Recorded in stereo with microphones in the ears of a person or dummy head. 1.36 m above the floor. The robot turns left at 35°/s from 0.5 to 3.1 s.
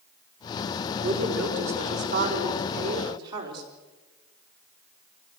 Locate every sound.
1.0 s a woman speaking: 75° right, 4.5 m; by 3.6 s 150° right, 4.5 m